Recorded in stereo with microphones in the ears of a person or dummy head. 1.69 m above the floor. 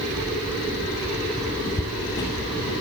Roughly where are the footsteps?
Centre.